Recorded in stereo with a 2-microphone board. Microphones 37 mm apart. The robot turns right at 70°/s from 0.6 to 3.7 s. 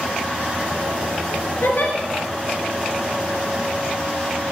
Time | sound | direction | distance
1.6 | a giggle | 65° left (ahead or behind) | 1.1 m